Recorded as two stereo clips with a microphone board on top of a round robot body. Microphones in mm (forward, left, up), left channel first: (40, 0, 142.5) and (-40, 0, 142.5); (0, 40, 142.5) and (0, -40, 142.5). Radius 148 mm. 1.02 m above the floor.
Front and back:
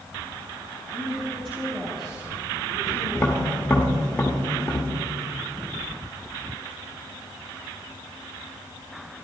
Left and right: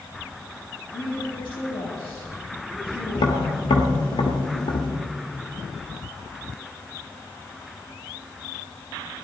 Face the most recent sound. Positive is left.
turn(degrees=75)